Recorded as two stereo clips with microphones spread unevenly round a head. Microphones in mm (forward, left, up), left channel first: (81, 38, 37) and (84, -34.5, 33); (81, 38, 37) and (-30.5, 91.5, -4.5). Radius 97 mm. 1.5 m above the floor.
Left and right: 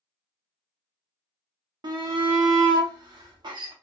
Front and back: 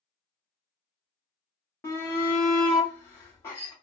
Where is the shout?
105° right, 0.8 m.